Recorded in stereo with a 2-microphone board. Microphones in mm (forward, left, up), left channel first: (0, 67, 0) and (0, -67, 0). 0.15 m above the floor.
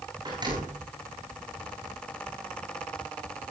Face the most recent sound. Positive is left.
turn(degrees=-35)  # may be behind; listen again after turning